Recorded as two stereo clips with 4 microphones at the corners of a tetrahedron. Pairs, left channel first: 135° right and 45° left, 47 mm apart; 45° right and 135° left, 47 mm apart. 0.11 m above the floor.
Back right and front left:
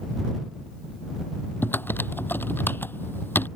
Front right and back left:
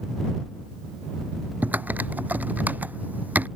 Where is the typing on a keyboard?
175° right.